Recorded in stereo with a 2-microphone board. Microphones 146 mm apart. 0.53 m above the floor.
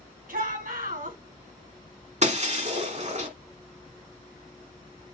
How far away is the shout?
About 4 m.